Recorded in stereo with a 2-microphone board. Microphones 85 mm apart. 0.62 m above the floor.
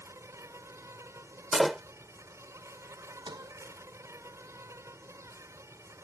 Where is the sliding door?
65° right (ahead or behind).